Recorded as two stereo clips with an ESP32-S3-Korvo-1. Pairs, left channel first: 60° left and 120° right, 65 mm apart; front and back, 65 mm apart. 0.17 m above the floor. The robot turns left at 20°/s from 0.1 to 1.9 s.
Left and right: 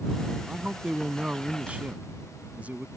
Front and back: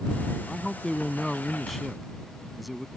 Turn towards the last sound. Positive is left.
turn(degrees=-90)